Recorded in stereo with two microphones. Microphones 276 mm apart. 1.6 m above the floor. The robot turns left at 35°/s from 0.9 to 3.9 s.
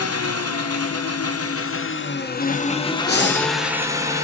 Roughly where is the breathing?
Left.